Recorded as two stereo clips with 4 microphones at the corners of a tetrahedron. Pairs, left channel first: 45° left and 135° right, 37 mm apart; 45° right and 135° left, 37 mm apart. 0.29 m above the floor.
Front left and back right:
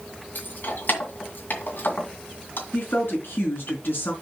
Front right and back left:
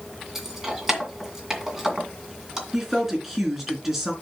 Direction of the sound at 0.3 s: 60° left.